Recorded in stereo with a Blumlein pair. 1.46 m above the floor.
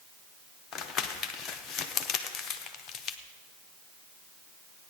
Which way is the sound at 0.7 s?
25° left.